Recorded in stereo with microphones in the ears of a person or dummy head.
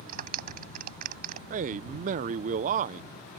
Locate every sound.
0.1 s a clap: 50° right (ahead or behind)
1.5 s a man speaking: 45° right (ahead or behind)